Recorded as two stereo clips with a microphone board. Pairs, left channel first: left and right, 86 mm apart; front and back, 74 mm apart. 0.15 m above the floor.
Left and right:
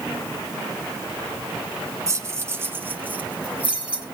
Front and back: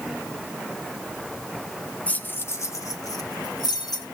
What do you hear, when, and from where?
2.1 s keys jangling: 60° right, 1.0 m; by 4.0 s 15° right, 2 m